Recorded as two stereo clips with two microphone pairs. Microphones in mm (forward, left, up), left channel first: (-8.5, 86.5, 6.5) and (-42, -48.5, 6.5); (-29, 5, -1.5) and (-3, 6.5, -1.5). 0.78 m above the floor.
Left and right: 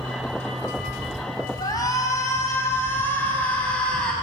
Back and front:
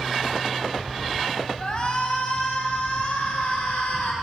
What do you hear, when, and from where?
1.6 s a shout: 140° left, 6 m; by 4.1 s 160° left, 6.5 m